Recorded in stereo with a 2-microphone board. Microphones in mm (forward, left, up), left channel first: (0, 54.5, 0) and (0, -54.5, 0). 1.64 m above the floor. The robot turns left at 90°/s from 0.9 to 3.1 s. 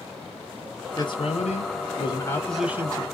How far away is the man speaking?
About 1.2 m.